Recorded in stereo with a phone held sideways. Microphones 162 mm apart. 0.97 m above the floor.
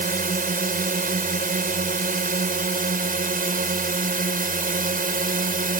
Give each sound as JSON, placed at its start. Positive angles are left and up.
{"t": 0.0, "sound": "a drone", "side_deg": -60}